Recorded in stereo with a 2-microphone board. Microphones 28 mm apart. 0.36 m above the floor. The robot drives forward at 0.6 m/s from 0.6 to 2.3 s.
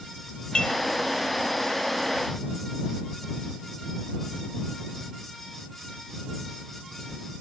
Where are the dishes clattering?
30° left (ahead or behind), 1.3 m; by 0.8 s 35° left (ahead or behind), 1.3 m.